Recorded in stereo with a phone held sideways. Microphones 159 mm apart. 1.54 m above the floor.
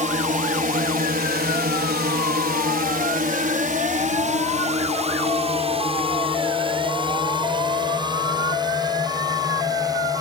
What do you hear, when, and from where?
0.0 s a drone: 55° right (ahead or behind); by 10.2 s 25° right (ahead or behind)